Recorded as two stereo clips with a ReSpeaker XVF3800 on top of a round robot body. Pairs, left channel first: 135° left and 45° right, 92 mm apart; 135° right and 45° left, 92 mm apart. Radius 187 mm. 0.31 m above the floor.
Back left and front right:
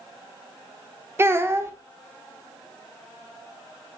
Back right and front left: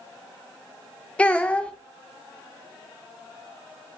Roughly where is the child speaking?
Right.